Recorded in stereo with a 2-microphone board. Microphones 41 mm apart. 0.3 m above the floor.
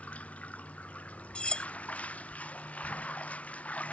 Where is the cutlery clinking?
25° left (ahead or behind).